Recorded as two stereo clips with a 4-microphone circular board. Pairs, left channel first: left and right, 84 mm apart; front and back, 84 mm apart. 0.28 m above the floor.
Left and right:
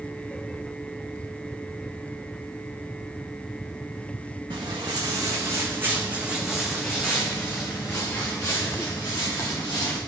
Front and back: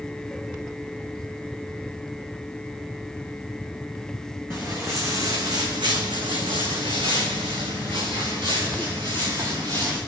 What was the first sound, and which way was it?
Footsteps, 120° right.